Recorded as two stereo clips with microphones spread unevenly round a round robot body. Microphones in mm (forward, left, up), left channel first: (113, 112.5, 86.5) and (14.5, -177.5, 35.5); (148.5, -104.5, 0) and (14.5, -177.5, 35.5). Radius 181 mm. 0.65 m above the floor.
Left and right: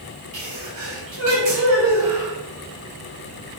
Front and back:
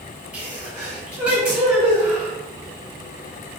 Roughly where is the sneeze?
Right.